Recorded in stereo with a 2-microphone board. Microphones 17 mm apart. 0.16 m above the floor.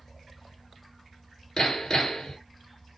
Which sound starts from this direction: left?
Hammering, at 1.6 s.